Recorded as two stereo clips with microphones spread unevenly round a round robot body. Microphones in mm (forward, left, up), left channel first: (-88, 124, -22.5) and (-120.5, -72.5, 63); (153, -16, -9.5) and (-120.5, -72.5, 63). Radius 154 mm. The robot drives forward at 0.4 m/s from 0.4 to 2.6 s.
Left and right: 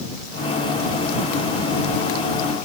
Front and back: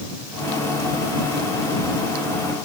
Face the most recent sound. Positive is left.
No sound to turn to.